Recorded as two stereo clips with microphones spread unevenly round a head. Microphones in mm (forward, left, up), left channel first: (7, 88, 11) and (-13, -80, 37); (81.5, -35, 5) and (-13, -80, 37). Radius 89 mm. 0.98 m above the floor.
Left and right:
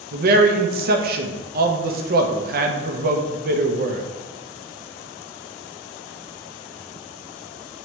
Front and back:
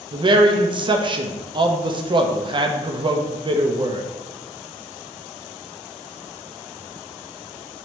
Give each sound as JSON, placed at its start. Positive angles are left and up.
{"t": 0.1, "sound": "a man speaking", "azimuth_deg": -105, "distance_m": 0.6}